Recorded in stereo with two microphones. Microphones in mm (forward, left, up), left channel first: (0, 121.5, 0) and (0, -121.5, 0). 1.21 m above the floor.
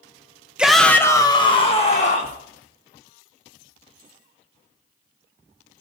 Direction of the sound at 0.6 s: 5° right (ahead or behind).